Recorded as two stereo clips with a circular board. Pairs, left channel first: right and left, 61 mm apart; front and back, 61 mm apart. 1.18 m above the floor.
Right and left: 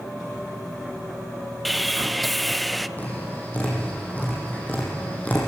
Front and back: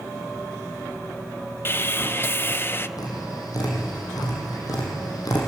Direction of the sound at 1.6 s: Straight ahead.